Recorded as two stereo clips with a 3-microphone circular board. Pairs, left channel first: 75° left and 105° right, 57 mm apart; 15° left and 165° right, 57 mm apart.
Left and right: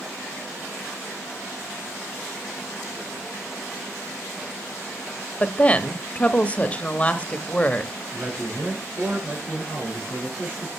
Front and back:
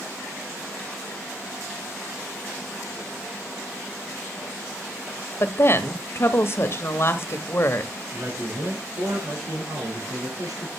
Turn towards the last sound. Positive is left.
turn(degrees=-160)